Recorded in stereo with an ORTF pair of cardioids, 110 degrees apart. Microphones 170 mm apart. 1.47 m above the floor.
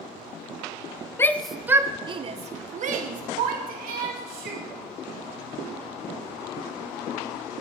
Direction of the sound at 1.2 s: 15° left.